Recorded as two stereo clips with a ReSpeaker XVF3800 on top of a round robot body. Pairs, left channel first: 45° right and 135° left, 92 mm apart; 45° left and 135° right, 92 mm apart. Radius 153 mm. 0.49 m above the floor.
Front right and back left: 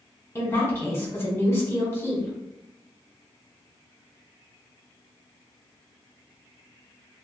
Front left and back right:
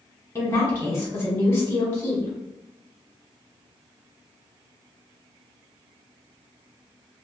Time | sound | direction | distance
0.3 | a woman speaking | 5° right | 1.6 m